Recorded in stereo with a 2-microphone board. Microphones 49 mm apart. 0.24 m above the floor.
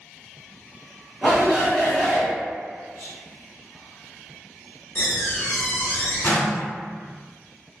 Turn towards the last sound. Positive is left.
turn(degrees=50)  # may be behind; listen again after turning